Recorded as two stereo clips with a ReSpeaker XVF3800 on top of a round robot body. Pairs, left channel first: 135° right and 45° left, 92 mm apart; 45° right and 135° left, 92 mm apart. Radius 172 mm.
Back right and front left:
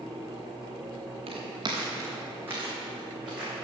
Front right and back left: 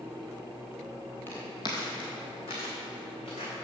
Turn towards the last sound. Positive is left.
turn(degrees=-35)